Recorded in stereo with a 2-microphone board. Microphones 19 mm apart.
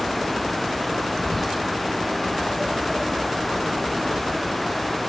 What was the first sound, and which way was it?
Whispering, 10° left (ahead or behind).